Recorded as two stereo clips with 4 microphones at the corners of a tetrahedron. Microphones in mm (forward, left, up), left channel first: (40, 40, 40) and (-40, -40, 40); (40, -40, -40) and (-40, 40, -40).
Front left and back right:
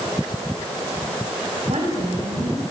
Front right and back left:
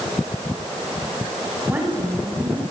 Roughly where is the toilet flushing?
No toilet flushing in this recording.